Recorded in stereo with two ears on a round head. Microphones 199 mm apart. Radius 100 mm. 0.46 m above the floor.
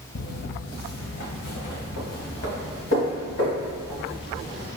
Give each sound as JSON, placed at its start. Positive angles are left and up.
{"t": 0.1, "sound": "footsteps", "side_deg": 45, "distance_m": 0.6}